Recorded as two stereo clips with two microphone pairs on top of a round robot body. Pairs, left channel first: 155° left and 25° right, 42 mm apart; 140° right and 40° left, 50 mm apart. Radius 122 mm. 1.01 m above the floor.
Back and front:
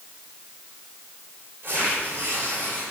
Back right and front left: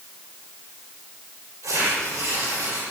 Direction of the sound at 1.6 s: 30° left.